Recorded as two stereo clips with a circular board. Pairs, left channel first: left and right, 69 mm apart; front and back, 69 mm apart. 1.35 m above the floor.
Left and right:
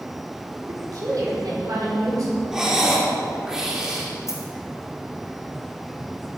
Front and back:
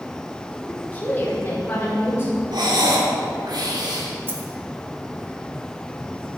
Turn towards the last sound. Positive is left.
turn(degrees=125)